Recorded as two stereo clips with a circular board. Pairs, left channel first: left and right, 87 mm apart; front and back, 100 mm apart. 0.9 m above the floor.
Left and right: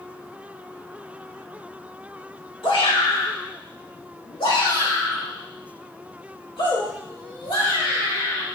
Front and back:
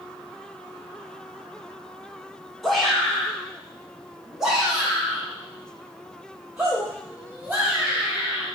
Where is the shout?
90° left, 2.5 m; by 8.5 s 100° left, 5.5 m.